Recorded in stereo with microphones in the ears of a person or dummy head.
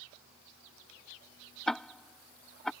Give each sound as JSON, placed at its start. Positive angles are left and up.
{"t": 1.7, "sound": "ticking", "side_deg": 5}